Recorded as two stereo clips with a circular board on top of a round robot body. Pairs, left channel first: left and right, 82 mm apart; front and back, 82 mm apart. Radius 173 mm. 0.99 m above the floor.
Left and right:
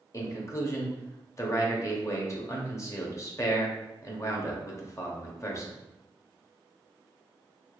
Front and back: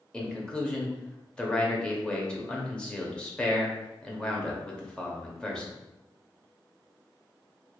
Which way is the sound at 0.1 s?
70° left.